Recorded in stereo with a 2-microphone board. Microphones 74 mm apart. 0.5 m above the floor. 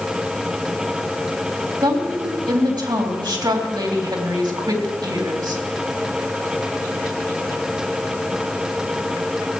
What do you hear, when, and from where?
1.8 s a woman speaking: 70° right (ahead or behind), 2.5 m